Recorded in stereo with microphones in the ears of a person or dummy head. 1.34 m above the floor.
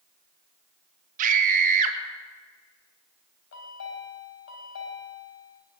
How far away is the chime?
About 3.5 m.